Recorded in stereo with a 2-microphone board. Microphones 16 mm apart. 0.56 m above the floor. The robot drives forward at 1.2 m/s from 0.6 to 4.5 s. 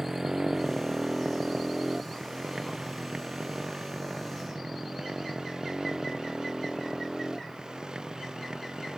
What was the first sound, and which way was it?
A motorcycle, 35° right (ahead or behind).